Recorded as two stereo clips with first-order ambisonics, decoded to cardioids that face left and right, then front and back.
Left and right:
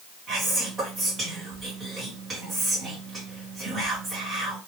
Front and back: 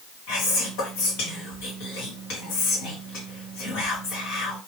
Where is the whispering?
10° right, 1.2 m.